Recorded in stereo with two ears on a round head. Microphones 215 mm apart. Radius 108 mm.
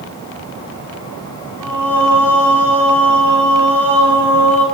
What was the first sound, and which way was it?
Singing, 5° left (ahead or behind).